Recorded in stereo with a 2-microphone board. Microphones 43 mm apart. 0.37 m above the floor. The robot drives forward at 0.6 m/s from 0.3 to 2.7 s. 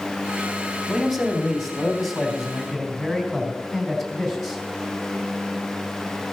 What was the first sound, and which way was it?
A man speaking, centre (ahead or behind).